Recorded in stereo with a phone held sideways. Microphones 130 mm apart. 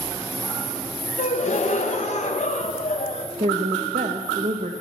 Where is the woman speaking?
65° right (ahead or behind), 0.7 m.